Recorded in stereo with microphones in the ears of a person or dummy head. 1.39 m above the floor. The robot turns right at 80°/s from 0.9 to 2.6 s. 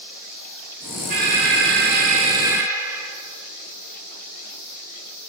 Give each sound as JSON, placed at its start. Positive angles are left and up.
{"t": 1.1, "sound": "an alarm", "azimuth_deg": -130, "distance_m": 2.0}